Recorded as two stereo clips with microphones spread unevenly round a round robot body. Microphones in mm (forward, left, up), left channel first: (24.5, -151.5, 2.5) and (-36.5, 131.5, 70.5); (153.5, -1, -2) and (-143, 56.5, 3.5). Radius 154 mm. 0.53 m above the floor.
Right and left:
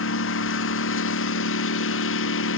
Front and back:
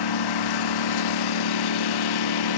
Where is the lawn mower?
30° right.